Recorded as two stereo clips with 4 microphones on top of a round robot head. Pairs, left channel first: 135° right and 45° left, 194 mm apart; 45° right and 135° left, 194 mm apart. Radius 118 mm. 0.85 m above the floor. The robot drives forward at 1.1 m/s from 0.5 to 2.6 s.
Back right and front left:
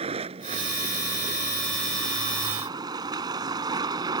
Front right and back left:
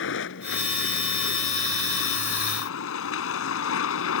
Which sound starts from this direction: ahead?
A vehicle, at 0.0 s.